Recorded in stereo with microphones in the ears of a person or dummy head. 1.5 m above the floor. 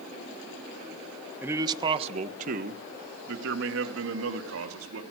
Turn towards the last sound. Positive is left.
turn(degrees=-85)